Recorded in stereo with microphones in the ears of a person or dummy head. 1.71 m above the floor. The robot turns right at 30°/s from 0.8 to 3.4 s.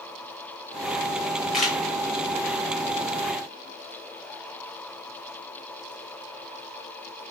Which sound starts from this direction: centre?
A camera shutter, at 1.5 s.